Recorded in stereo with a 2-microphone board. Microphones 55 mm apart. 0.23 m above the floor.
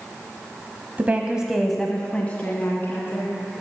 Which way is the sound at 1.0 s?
35° right (ahead or behind).